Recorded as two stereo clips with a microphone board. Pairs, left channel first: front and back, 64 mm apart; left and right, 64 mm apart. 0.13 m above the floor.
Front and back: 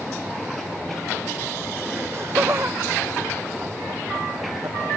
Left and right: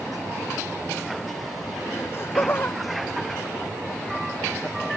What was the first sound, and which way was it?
Laughter, 140° left.